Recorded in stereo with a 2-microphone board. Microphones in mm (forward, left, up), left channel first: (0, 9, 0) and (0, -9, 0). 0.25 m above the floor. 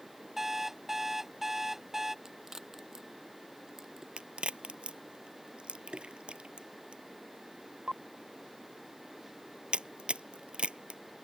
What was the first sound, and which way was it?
An alarm clock, 20° right (ahead or behind).